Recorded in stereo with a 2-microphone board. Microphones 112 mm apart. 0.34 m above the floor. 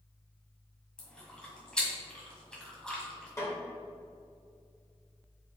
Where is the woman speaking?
I don't hear a woman speaking.